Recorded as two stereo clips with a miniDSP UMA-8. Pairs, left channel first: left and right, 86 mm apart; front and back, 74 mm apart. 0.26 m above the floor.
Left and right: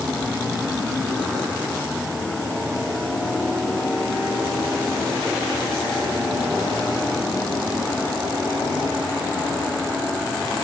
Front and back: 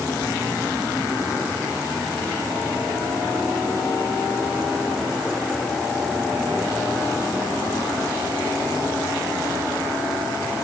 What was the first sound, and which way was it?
Only background noise.